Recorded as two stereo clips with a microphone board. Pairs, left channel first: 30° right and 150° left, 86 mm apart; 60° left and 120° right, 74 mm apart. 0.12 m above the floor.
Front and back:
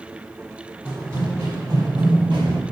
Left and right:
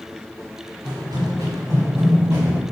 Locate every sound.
0.8 s running footsteps: 145° right, 1.3 m; by 2.6 s 175° left, 1.9 m